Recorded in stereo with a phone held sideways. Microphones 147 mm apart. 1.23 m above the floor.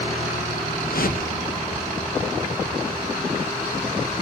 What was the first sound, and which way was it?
A whoosh, 70° left (ahead or behind).